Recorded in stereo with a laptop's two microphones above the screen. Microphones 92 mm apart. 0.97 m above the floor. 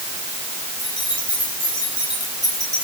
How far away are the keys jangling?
About 8.5 m.